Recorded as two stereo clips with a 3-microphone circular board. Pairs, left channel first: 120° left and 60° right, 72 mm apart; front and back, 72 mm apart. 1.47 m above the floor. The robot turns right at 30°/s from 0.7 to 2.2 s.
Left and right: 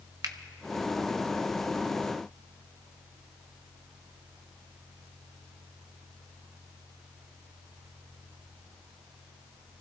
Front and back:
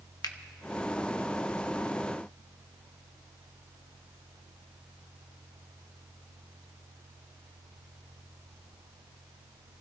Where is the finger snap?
30° right, 0.8 m.